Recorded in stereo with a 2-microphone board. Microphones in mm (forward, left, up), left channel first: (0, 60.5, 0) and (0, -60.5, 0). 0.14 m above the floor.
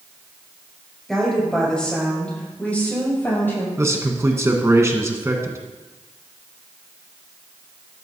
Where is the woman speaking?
Centre (ahead or behind), 5.5 m; by 3.7 s 20° left (ahead or behind), 6.5 m.